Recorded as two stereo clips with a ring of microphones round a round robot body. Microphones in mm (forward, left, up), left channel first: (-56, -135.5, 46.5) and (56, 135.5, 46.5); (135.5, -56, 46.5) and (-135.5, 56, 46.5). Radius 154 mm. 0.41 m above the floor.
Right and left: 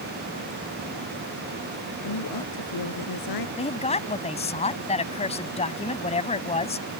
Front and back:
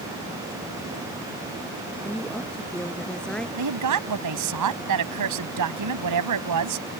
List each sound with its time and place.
2.0 s a woman speaking: 110° right
3.6 s a woman speaking: straight behind